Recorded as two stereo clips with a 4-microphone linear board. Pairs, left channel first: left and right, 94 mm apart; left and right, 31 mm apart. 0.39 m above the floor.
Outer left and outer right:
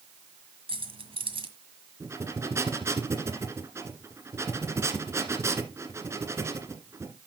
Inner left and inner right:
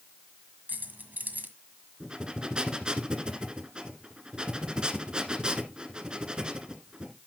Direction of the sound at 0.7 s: 75° right (ahead or behind).